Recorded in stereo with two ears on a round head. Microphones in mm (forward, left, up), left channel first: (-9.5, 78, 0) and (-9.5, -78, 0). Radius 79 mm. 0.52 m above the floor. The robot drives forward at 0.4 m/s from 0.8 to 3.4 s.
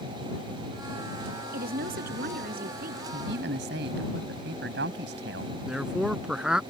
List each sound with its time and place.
1.5 s a woman speaking: 60° right (ahead or behind); by 3.0 s 55° right (ahead or behind)
3.1 s a man speaking: 70° right (ahead or behind)
5.7 s a man speaking: 5° right (ahead or behind)